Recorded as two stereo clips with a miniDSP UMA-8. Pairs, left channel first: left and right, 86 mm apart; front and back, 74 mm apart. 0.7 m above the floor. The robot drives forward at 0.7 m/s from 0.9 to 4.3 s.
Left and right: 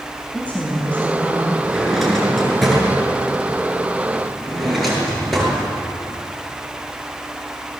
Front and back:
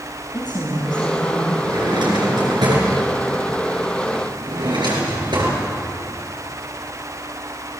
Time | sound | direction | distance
0.3 | a woman speaking | 15° left | 5.5 m
1.6 | a drawer | straight behind | 6.5 m